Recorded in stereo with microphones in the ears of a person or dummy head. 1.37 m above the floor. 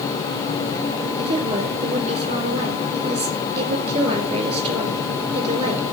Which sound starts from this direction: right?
A woman speaking, at 1.2 s.